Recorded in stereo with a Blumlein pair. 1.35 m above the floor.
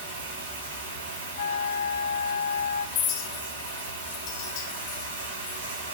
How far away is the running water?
About 3 m.